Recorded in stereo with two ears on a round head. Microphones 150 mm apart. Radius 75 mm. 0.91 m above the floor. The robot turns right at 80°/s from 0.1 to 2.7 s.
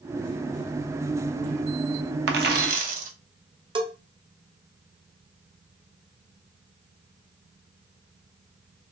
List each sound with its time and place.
2.3 s a dropped coin: 90° right, 0.7 m; by 3.1 s 55° right, 0.7 m
3.8 s a bell: 30° right (ahead or behind), 0.7 m